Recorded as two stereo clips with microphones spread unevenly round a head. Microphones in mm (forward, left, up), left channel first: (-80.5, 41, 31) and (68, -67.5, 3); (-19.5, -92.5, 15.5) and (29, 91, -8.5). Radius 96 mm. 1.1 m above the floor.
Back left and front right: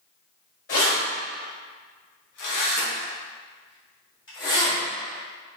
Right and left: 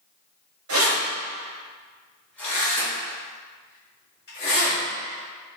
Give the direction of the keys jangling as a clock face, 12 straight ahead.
9 o'clock.